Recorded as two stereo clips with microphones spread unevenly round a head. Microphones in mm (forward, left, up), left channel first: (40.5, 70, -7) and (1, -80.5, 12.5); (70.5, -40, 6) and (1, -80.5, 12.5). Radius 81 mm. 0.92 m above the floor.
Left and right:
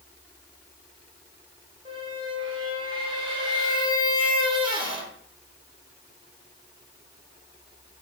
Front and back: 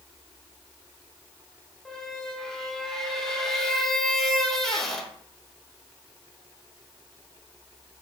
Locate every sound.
1.9 s a squeak: 60° right, 0.7 m